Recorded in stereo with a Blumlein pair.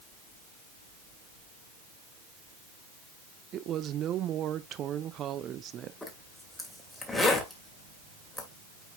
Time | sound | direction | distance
3.5 | a woman speaking | 30° right | 0.7 m
6.0 | a zipper | 5° left | 1.9 m